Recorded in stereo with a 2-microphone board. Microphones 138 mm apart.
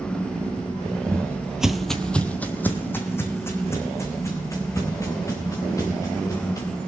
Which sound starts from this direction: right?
Footsteps, at 1.1 s.